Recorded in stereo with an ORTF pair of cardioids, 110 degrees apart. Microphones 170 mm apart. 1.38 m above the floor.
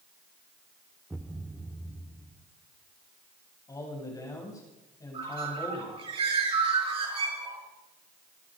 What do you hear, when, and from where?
1.1 s a thud: 5° right, 2 m
3.7 s a man speaking: 20° left, 8.5 m
5.1 s a bird: 35° right, 9 m